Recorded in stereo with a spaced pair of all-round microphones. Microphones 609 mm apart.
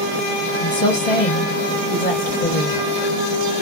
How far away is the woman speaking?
About 1.1 m.